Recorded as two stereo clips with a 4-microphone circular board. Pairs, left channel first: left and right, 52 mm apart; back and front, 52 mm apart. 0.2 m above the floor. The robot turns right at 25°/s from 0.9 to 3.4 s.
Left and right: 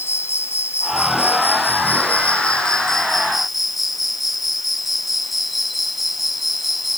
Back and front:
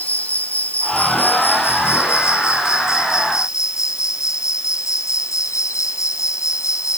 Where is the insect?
120° left; by 7.0 s straight behind.